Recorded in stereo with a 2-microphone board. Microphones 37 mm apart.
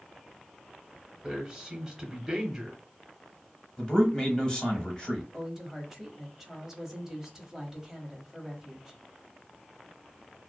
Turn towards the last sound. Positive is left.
turn(degrees=-15)  # may be behind; listen again after turning